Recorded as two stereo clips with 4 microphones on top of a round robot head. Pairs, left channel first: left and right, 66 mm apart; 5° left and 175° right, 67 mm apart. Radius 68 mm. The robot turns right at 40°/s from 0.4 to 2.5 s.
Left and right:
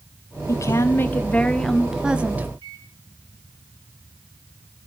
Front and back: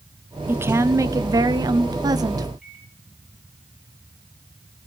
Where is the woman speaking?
130° left, 1.3 m; by 2.5 s 150° right, 1.3 m.